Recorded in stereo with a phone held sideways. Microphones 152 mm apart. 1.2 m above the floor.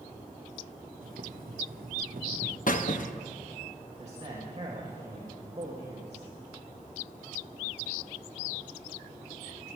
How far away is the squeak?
About 0.9 m.